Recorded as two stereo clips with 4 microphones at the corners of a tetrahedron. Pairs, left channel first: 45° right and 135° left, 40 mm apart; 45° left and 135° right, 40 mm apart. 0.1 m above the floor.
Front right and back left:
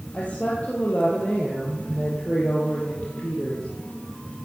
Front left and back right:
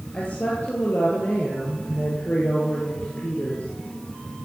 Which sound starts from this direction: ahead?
A woman speaking, at 0.1 s.